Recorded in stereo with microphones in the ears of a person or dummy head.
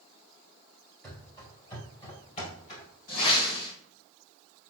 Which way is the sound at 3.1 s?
50° left (ahead or behind).